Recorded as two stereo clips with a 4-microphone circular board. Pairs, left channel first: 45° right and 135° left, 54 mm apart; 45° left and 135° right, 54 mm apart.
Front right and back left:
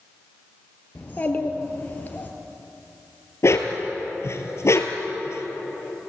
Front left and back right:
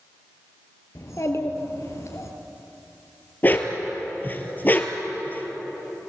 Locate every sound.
0.9 s a child speaking: 10° left, 3.5 m
3.4 s a dog barking: 10° right, 1.9 m